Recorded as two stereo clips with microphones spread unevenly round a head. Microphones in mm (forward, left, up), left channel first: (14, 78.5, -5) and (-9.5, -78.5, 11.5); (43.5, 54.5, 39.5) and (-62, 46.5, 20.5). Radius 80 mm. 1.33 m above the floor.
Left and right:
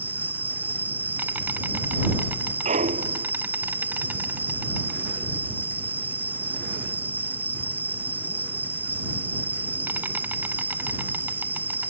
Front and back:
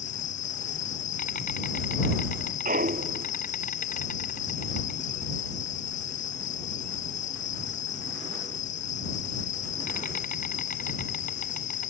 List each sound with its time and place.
0.0 s an insect: 20° right
2.6 s a clunk: 145° right